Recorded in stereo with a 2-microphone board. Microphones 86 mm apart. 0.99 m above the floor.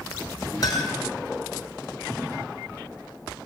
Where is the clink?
45° left (ahead or behind), 8.5 m.